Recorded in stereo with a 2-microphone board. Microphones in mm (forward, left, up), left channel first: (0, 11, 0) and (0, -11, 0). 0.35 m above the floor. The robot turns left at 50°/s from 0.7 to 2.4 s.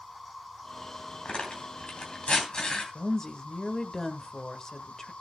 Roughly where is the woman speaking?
Left.